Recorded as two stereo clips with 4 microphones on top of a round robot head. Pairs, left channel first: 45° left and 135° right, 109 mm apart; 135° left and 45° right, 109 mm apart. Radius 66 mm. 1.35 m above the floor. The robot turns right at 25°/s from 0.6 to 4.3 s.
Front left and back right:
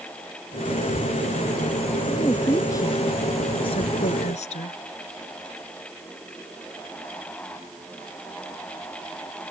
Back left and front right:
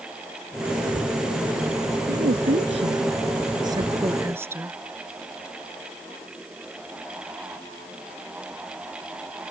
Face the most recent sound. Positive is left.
turn(degrees=25)